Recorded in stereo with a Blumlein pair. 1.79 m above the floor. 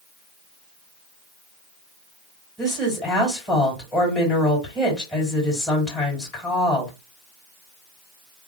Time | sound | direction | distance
2.6 | a woman speaking | 5° left | 3 m